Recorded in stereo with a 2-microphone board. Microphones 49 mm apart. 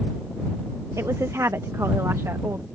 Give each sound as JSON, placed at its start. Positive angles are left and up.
{"t": 1.0, "sound": "a woman speaking", "side_deg": -85}